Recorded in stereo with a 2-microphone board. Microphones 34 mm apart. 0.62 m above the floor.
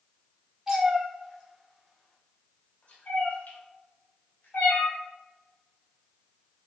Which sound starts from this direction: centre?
A cat meowing, at 0.7 s.